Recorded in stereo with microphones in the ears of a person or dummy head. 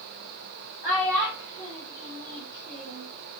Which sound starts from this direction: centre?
A child speaking, at 0.8 s.